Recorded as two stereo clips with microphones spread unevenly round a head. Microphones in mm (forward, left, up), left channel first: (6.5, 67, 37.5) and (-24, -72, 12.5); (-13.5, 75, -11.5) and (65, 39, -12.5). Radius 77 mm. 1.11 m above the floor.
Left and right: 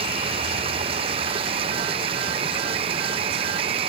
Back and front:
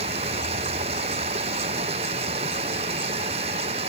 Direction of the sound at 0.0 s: 45° right.